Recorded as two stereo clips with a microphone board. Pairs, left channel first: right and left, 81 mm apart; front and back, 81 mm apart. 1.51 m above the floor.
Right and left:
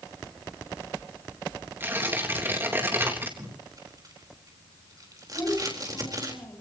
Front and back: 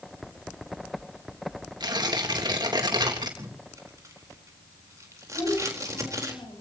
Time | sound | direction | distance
1.8 | tearing paper | 150° left | 3 m
3.4 | tape being pulled | 130° left | 4 m
5.3 | a child speaking | 30° right | 9 m